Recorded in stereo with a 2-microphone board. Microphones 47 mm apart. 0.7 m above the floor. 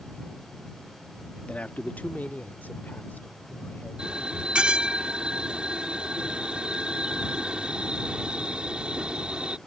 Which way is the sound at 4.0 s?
25° right (ahead or behind).